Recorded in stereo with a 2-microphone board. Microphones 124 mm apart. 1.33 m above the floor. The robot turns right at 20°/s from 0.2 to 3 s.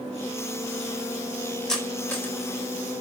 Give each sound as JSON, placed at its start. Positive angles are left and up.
{"t": 1.7, "sound": "cutlery clinking", "side_deg": 5, "distance_m": 4.0}